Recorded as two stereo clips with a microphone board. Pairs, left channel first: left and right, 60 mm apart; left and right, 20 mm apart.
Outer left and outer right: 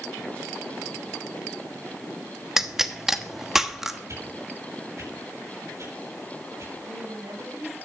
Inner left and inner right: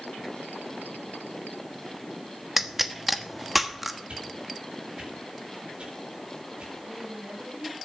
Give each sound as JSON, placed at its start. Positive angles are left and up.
{"t": 2.6, "sound": "a pop", "side_deg": -5, "distance_m": 1.1}
{"t": 4.1, "sound": "a whoosh", "side_deg": -55, "distance_m": 8.5}
{"t": 6.8, "sound": "a woman speaking", "side_deg": -65, "distance_m": 5.5}